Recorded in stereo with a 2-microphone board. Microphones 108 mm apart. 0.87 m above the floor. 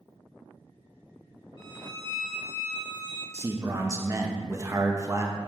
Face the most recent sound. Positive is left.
turn(degrees=-30)  # may be behind; listen again after turning